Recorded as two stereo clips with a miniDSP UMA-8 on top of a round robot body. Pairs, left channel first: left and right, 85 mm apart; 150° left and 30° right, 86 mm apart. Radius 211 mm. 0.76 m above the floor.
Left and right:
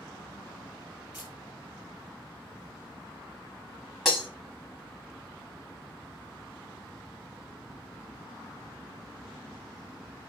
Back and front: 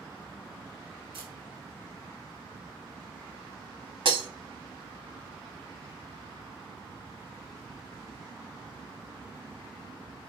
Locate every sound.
1.1 s a camera shutter: 15° right, 1.0 m
4.0 s breaking glass: 5° right, 0.7 m